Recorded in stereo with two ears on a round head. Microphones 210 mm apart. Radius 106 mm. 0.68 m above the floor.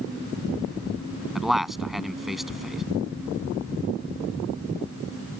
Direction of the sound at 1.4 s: Centre (ahead or behind).